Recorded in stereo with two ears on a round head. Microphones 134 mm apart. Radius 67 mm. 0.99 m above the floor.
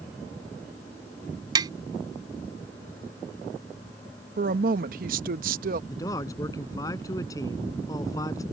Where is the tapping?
30° right (ahead or behind).